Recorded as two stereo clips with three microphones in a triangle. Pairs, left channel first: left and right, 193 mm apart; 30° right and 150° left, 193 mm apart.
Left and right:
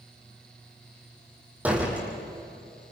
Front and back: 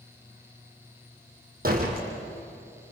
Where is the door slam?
170° right, 4.5 m.